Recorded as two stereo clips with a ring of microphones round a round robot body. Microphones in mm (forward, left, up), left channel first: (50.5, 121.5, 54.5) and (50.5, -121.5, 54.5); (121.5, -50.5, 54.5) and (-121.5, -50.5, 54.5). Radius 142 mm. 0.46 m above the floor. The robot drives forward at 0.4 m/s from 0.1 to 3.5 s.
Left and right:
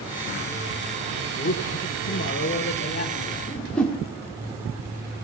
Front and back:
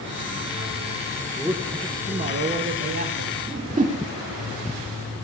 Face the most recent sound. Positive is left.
turn(degrees=175)